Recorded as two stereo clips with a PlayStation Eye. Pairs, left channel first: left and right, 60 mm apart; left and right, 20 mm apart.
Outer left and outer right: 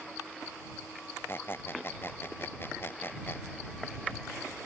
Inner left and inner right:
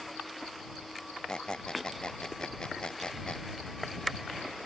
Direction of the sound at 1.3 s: 40° left (ahead or behind).